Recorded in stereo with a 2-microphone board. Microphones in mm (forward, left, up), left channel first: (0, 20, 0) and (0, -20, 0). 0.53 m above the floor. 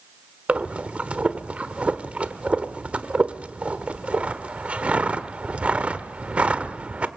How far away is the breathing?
About 1.3 m.